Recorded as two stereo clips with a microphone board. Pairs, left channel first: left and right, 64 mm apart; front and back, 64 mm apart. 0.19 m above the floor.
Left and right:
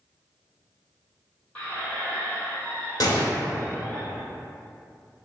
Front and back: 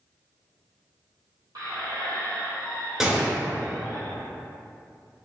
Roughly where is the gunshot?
Left.